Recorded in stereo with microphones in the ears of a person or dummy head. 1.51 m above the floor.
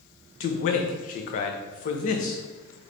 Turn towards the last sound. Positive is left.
turn(degrees=50)  # may be behind; listen again after turning